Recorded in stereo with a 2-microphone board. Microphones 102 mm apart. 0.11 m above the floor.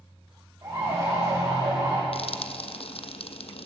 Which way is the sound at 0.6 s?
25° right (ahead or behind).